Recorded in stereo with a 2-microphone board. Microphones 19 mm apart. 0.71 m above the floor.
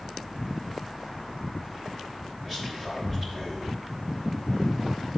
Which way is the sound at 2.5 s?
20° right (ahead or behind).